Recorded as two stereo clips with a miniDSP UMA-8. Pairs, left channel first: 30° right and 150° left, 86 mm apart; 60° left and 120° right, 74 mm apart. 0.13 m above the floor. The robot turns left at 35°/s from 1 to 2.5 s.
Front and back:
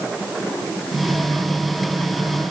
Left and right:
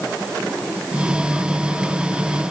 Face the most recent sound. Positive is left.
No sound to turn to.